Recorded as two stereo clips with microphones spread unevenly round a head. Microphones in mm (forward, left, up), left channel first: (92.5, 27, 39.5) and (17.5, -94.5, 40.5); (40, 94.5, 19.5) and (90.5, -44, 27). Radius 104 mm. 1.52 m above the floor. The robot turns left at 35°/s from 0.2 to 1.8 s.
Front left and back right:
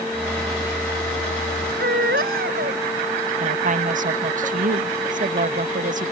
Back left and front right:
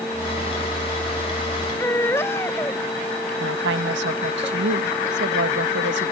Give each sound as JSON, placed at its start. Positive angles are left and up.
{"t": 1.8, "sound": "a baby crying", "azimuth_deg": -170}
{"t": 3.4, "sound": "a woman speaking", "azimuth_deg": -90}